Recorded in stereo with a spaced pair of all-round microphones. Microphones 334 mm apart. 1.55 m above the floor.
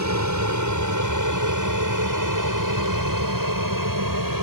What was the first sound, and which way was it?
An aircraft, 55° right (ahead or behind).